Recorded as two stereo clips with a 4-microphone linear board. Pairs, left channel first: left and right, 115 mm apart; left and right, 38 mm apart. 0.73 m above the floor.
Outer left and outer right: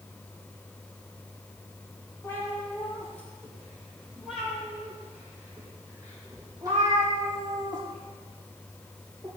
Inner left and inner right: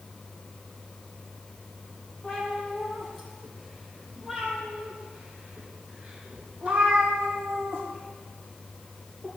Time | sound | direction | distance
2.2 | a cat meowing | 25° left (ahead or behind) | 4.5 m